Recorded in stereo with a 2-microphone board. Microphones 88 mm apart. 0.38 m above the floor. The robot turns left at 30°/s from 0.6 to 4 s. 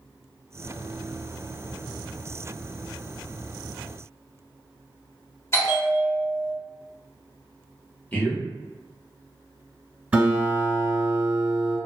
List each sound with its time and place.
5.5 s a bell: 30° left (ahead or behind), 1.3 m
8.1 s a man speaking: 15° left (ahead or behind), 0.9 m
10.1 s a guitar: 20° right (ahead or behind), 1.5 m